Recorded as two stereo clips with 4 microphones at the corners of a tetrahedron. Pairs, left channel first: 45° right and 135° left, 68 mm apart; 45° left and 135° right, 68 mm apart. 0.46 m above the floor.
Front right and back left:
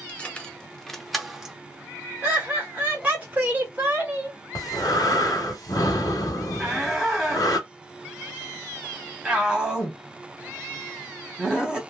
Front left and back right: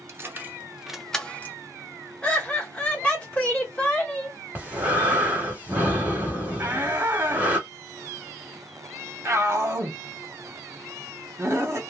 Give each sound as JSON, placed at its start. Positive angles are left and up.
{"t": 0.1, "sound": "keys jangling", "azimuth_deg": -105, "distance_m": 0.7}
{"t": 2.2, "sound": "laughter", "azimuth_deg": 100, "distance_m": 1.1}
{"t": 4.5, "sound": "breathing", "azimuth_deg": -70, "distance_m": 1.0}
{"t": 6.6, "sound": "a shout", "azimuth_deg": -145, "distance_m": 1.0}